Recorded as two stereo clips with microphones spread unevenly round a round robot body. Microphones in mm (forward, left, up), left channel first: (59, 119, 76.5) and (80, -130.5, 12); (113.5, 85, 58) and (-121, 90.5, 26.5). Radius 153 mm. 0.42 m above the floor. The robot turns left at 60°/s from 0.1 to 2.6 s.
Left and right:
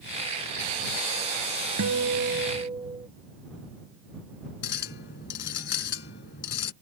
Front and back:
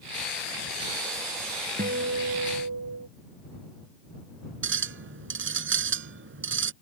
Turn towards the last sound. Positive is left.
turn(degrees=150)